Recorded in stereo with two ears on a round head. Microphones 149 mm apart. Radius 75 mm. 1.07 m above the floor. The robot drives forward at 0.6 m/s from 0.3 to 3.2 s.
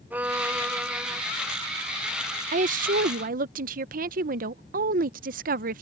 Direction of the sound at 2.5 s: 45° right (ahead or behind).